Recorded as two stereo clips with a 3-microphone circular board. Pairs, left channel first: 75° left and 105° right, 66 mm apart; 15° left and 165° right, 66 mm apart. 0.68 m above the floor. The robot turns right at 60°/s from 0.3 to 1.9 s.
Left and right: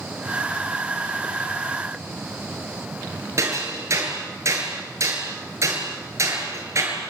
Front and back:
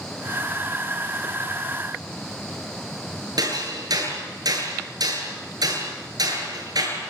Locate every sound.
3.4 s hammering: 150° right, 7.5 m